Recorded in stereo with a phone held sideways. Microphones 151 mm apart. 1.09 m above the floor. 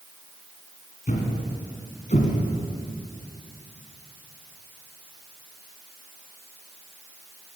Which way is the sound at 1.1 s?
60° left (ahead or behind).